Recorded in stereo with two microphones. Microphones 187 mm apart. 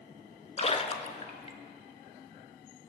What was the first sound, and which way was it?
A splash, 35° left (ahead or behind).